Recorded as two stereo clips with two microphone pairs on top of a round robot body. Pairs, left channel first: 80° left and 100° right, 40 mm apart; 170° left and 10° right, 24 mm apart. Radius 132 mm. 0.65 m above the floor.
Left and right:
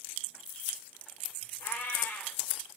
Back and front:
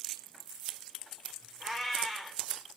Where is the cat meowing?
65° left, 1.6 m.